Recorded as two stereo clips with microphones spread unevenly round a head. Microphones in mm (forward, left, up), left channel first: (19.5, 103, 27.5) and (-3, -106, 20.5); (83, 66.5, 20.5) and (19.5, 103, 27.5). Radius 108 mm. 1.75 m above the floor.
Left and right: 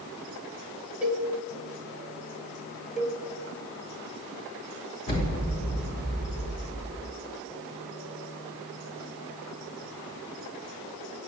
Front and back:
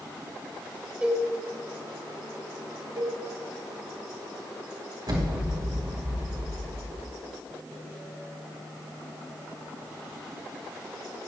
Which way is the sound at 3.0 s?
170° left.